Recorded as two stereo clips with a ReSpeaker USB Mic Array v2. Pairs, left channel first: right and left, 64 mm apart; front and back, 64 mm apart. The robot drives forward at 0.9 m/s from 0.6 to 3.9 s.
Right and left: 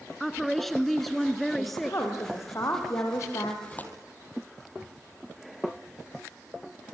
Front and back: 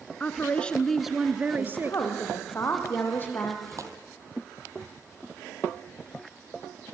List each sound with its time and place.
0.2 s a woman speaking: 10° right, 1.1 m; by 2.0 s 175° right, 1.4 m
1.6 s a woman speaking: 45° right, 7 m; by 3.5 s 60° right, 5.5 m
3.6 s tearing paper: 150° right, 2.5 m